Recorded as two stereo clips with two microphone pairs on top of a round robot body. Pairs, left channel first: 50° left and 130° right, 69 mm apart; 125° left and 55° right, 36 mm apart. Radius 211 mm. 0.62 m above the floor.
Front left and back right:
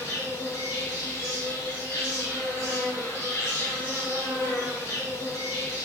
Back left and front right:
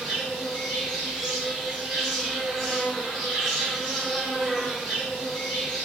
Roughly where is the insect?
Ahead left.